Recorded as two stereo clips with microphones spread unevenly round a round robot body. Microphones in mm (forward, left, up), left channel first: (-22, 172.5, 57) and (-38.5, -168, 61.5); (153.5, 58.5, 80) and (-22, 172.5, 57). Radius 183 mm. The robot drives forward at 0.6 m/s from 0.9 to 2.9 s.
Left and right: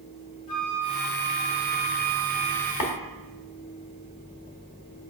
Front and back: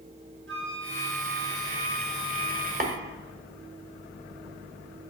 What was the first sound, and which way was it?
A flute, 120° left.